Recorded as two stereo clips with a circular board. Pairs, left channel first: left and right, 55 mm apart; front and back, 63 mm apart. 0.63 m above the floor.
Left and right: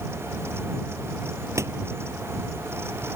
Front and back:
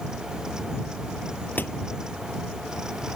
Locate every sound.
1.6 s a door slam: 60° right